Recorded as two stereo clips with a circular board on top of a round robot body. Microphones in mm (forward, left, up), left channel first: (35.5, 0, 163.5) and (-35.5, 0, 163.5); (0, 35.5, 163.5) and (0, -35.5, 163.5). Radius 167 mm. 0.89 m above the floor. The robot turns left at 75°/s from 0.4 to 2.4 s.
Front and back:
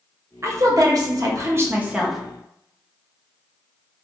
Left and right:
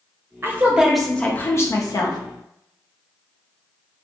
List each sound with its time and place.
0.4 s a woman speaking: 140° right, 0.9 m; by 2.2 s 90° left, 0.9 m